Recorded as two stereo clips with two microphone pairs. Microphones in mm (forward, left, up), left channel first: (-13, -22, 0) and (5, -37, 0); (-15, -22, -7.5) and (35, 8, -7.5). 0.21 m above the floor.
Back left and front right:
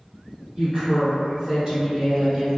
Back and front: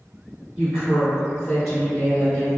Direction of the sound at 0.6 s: 15° right.